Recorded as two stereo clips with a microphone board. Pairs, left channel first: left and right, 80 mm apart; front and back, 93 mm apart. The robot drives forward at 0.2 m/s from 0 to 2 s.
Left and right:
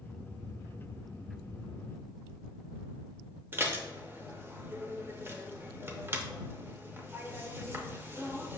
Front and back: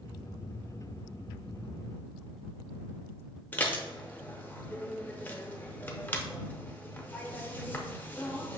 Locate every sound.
3.5 s dishes clattering: 60° right, 0.5 m